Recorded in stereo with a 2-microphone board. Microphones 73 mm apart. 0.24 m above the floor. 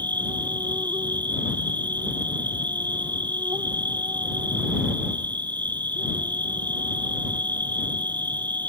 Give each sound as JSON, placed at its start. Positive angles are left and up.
{"t": 0.0, "sound": "an insect", "side_deg": -85}